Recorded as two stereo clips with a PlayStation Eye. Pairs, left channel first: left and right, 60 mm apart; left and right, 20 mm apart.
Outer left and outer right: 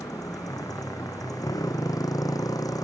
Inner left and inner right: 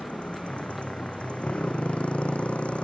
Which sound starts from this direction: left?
A motorcycle, at 0.0 s.